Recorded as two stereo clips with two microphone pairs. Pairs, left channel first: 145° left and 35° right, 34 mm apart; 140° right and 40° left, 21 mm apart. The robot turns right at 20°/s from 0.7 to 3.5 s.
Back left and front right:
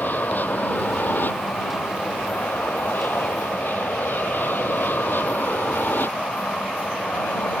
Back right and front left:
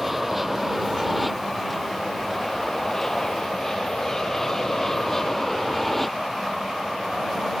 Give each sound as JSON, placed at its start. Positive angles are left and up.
{"t": 0.0, "sound": "an aircraft", "azimuth_deg": 125}